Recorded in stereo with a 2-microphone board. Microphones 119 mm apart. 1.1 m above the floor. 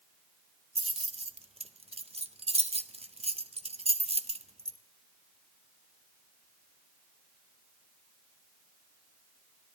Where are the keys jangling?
50° right (ahead or behind), 0.6 m.